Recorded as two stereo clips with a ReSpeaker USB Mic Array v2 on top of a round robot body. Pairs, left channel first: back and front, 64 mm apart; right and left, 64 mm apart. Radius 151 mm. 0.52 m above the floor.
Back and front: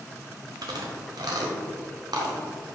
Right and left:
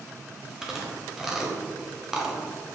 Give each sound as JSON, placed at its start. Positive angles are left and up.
{"t": 0.6, "sound": "chewing", "azimuth_deg": 5, "distance_m": 1.2}